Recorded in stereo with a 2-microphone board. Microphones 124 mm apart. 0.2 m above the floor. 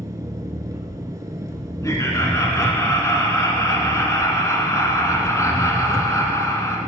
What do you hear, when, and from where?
0.0 s an engine running: 30° right (ahead or behind), 0.9 m
1.8 s laughter: 25° left (ahead or behind), 1.6 m